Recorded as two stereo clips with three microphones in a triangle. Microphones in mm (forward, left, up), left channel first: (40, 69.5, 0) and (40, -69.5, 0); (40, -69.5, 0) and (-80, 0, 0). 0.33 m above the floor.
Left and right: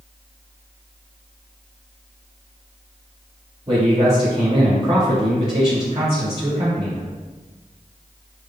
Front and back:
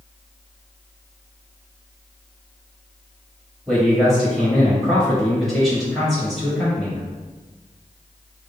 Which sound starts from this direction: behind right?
A man speaking, at 3.7 s.